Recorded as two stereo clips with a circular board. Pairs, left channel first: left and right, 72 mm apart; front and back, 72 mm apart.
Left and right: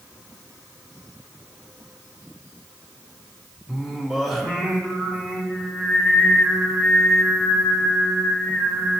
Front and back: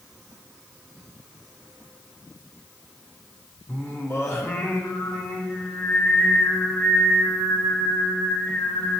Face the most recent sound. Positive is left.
turn(degrees=0)